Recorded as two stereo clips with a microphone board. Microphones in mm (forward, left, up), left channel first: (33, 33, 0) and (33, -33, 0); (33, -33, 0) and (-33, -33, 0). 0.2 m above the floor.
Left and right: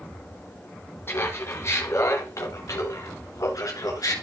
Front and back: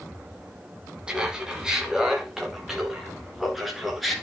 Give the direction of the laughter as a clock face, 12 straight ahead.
8 o'clock.